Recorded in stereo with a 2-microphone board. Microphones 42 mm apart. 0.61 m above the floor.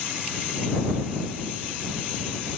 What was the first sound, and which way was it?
Only background noise.